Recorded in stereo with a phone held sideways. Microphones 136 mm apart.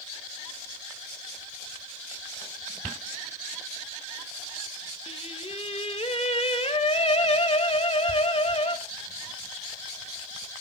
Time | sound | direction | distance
5.1 | singing | 45° left (ahead or behind) | 1.1 m